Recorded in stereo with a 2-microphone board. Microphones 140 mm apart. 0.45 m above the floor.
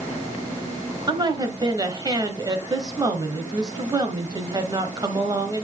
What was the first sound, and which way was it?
A woman speaking, 30° right (ahead or behind).